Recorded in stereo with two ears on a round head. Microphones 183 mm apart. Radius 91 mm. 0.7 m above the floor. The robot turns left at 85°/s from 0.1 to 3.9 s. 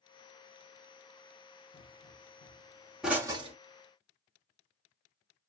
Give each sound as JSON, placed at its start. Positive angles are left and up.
{"t": 1.7, "sound": "a pop", "side_deg": 40, "distance_m": 1.1}